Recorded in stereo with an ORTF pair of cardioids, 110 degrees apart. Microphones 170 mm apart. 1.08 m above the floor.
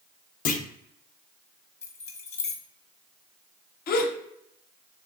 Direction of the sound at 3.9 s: 70° left.